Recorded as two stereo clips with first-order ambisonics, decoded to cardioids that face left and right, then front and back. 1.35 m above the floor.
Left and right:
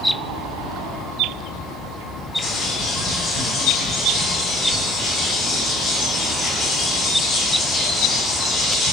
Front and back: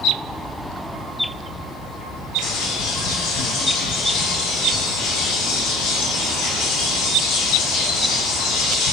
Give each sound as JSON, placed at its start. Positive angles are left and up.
{"t": 2.4, "sound": "a bird", "azimuth_deg": 15, "distance_m": 1.6}